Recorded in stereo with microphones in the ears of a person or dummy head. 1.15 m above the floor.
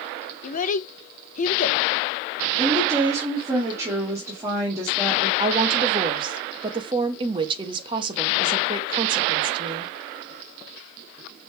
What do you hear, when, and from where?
0.4 s a child speaking: 40° left (ahead or behind), 0.5 m
2.6 s a woman speaking: 20° right (ahead or behind), 2 m
5.4 s a woman speaking: 25° right (ahead or behind), 1.0 m